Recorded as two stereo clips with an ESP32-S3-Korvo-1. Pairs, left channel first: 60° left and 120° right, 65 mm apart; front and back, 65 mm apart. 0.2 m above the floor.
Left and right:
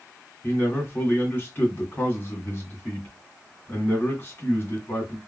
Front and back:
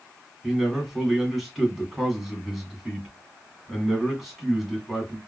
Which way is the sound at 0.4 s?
95° left.